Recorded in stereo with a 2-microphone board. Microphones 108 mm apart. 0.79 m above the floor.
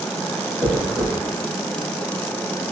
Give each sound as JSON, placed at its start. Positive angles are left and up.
{"t": 0.6, "sound": "a dropped coin", "side_deg": -40, "distance_m": 1.8}